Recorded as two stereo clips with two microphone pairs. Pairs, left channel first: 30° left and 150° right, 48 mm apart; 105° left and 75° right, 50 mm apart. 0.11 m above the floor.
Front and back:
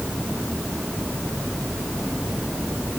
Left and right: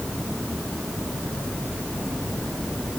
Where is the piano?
No piano in this recording.